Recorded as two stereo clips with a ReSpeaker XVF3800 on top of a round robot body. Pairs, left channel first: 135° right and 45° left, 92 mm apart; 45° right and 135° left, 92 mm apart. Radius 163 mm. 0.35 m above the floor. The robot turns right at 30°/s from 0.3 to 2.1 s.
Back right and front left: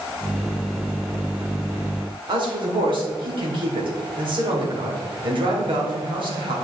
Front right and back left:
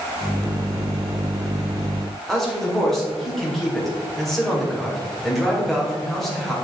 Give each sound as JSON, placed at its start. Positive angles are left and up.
{"t": 2.3, "sound": "a man speaking", "azimuth_deg": 45, "distance_m": 2.5}